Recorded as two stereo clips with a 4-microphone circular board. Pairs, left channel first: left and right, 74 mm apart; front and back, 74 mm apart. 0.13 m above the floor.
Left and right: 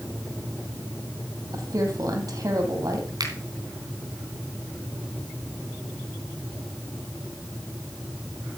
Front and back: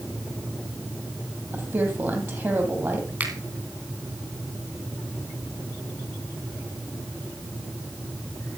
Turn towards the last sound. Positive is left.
turn(degrees=-115)